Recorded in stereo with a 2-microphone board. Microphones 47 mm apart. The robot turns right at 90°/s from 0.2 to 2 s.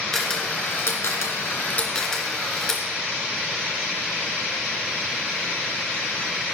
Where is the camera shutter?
10° left (ahead or behind), 2.5 m.